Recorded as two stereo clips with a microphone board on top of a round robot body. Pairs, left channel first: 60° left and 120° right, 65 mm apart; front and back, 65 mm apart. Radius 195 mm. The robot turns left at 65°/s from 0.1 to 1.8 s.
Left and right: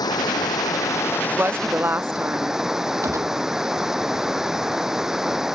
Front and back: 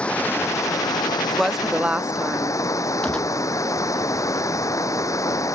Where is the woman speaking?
85° right; by 2.6 s 120° right.